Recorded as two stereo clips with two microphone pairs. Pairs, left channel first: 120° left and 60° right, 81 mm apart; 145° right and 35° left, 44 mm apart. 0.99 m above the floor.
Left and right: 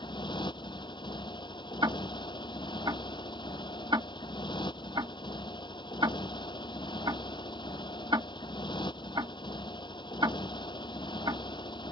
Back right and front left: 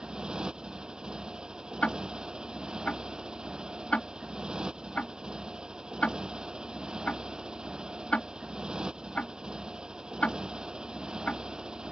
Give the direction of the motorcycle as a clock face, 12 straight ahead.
8 o'clock.